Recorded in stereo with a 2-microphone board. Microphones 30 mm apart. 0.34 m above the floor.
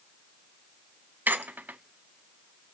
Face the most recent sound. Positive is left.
turn(degrees=-85)